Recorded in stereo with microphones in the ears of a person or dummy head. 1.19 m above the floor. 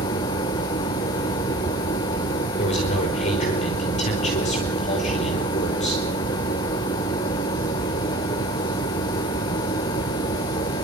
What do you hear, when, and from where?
0.0 s a machine running: 15° left (ahead or behind), 0.9 m
2.6 s a man speaking: 40° left (ahead or behind), 5 m